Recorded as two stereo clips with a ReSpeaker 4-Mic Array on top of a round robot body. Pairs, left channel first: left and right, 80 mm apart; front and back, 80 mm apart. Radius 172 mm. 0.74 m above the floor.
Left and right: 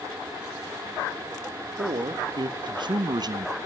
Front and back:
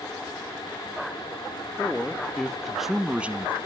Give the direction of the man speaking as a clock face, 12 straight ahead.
3 o'clock.